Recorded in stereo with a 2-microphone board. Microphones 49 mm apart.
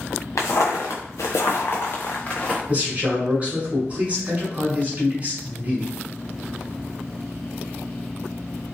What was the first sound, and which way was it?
Footsteps, 80° left.